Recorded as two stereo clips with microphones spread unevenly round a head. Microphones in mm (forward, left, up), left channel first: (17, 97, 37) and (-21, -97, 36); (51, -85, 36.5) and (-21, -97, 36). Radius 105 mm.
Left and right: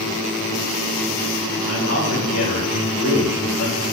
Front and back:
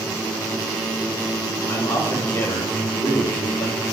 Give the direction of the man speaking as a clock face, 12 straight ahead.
10 o'clock.